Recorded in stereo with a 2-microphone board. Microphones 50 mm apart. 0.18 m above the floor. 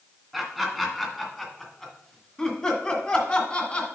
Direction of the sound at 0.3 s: Centre (ahead or behind).